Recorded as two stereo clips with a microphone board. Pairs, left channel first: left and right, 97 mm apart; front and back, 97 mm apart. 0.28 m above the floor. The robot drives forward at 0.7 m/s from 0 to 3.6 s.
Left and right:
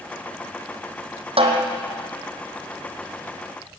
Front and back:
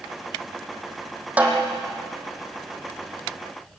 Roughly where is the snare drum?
Right.